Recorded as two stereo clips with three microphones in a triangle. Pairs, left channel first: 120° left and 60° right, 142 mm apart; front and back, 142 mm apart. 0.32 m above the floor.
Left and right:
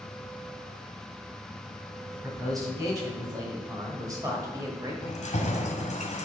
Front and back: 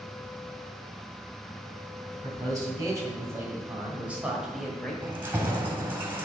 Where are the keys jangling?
105° left, 1.4 m.